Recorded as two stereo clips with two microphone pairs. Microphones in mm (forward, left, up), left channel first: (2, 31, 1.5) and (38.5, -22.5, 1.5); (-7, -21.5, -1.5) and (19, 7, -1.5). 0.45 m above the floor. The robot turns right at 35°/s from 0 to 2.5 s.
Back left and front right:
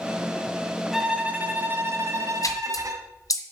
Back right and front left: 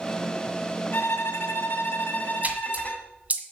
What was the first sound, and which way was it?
A violin, 140° right.